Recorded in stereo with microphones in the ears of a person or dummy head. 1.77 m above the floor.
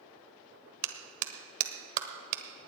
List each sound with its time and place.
0.8 s a clap: 50° right (ahead or behind), 1.2 m